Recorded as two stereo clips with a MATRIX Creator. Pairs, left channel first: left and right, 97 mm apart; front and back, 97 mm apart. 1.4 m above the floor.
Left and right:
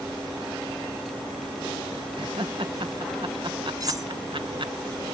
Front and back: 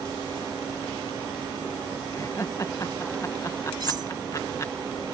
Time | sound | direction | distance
2.1 | laughter | 55° right | ?
3.8 | cutlery clinking | 140° right | ?